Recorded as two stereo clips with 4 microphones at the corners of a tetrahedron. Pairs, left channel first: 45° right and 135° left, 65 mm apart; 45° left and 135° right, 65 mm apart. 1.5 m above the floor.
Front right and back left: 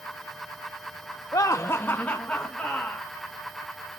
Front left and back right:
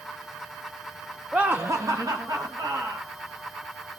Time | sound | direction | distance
1.3 | laughter | 60° right | 0.5 m